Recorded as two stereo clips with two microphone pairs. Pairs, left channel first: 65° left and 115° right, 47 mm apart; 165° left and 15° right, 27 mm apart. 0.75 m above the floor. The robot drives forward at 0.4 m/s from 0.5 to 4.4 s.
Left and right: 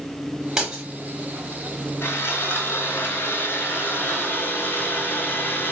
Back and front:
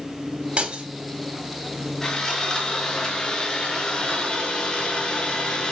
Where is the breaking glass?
40° right, 3 m.